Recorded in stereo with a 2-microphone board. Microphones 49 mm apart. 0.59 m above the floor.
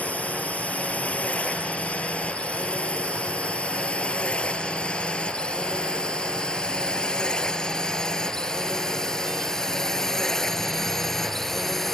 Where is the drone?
25° left (ahead or behind); by 12.0 s 5° left (ahead or behind).